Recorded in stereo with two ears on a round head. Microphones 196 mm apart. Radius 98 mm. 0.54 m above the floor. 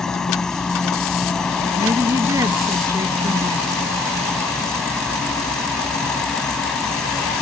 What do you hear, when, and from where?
0.0 s an insect: 5° left (ahead or behind)
1.8 s a woman speaking: 15° right (ahead or behind)